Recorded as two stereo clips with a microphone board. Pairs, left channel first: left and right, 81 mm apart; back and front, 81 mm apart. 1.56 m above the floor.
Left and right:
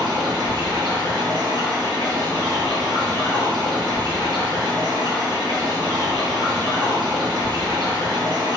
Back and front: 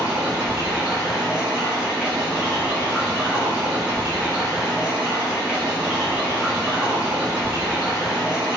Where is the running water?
80° right, 1.1 m.